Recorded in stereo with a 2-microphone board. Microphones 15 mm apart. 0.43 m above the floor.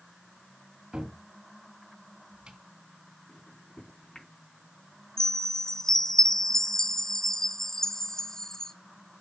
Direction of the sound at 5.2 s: 35° left (ahead or behind).